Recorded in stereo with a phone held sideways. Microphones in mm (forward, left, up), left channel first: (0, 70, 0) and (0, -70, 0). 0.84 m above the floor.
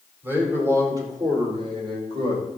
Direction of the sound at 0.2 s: 15° right (ahead or behind).